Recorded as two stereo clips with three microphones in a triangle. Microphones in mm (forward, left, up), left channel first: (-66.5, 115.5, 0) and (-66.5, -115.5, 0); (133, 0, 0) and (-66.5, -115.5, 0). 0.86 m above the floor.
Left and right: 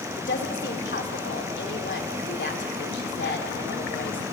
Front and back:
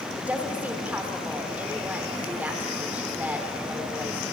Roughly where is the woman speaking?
Behind left.